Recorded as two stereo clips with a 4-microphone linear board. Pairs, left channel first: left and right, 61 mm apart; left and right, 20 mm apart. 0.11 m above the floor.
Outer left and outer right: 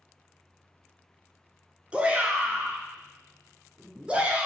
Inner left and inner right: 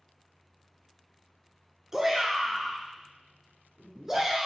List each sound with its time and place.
1.9 s a shout: 20° right (ahead or behind), 1.2 m